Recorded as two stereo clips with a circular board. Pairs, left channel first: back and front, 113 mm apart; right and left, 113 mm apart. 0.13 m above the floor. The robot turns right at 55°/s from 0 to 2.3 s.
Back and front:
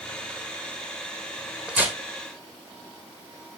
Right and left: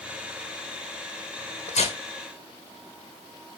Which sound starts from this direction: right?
Tearing paper, at 1.7 s.